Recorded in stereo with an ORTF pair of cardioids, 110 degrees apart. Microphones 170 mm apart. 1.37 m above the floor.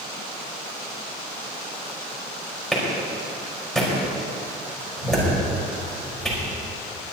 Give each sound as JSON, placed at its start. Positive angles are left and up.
{"t": 2.7, "sound": "a clap", "azimuth_deg": 0, "distance_m": 5.0}